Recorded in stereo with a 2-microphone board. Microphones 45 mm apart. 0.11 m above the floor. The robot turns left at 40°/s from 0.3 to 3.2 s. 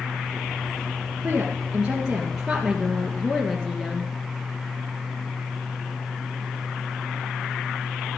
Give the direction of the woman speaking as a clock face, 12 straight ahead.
4 o'clock.